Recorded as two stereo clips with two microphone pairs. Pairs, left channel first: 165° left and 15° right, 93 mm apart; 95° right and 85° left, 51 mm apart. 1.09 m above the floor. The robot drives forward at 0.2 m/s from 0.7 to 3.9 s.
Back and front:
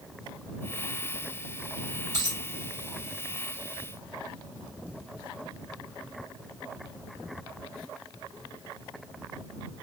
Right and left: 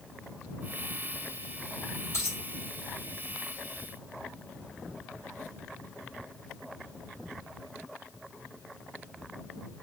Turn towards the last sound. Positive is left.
turn(degrees=-70)